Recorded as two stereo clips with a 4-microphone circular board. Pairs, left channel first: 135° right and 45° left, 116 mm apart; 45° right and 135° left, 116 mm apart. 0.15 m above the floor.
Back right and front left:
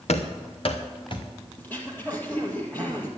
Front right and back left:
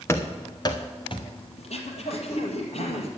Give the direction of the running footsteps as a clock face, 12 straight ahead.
4 o'clock.